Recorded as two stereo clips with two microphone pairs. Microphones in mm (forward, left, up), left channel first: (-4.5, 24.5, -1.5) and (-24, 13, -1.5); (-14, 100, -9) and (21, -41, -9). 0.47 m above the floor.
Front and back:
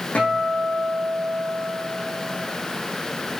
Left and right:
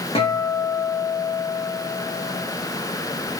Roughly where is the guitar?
Ahead left.